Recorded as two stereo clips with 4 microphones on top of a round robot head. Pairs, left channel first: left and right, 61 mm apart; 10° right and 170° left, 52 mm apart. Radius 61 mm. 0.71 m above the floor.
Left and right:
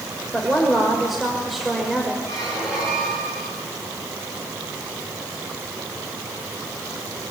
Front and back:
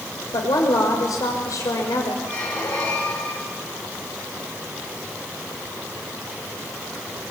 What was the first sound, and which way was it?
A woman speaking, 5° right.